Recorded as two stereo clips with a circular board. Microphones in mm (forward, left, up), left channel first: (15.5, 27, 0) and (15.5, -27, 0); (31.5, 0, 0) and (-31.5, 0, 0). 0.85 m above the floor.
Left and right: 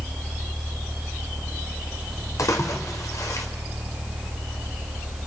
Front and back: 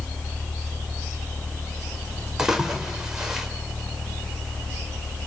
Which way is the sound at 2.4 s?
100° left.